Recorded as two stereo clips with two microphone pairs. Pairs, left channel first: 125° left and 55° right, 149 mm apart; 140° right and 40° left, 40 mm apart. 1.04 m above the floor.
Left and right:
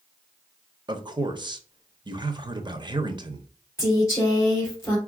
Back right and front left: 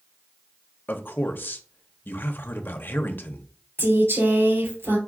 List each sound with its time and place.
0.9 s a man speaking: 115° right, 0.7 m
3.8 s a woman speaking: 50° left, 2.5 m